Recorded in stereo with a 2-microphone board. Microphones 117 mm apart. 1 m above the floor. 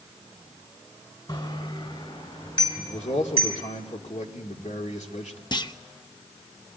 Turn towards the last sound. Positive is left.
turn(degrees=40)  # may be behind; listen again after turning